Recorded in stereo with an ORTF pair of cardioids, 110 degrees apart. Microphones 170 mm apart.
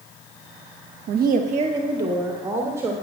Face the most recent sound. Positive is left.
turn(degrees=-15)